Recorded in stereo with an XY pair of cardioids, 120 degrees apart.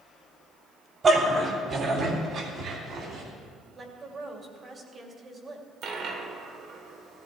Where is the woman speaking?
30° right, 2.5 m.